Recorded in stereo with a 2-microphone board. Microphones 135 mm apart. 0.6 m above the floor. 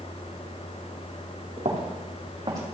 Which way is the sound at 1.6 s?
60° right (ahead or behind).